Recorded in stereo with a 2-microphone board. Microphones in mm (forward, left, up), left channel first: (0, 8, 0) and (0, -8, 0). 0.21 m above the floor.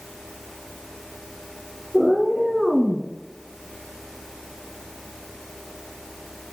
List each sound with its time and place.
1.9 s a cat meowing: 10° right (ahead or behind), 1.4 m; by 3.1 s 15° left (ahead or behind), 0.8 m